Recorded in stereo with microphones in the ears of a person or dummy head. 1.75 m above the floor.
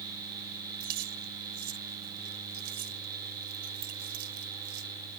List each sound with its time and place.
0.8 s keys jangling: 55° right (ahead or behind)